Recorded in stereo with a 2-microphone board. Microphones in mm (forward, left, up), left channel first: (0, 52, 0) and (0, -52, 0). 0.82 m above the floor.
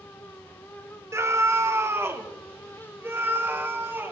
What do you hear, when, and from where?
1.1 s a scream: 25° right (ahead or behind), 0.8 m; by 4.1 s 20° right (ahead or behind), 3 m